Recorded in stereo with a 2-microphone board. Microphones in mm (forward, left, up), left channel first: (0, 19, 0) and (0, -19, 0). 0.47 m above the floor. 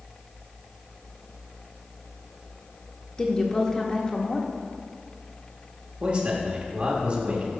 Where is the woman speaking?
20° left (ahead or behind), 0.9 m.